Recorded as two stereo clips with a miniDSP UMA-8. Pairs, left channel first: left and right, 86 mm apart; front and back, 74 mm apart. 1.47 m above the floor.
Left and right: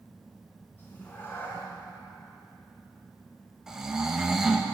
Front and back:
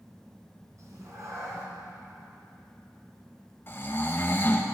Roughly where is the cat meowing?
Behind left.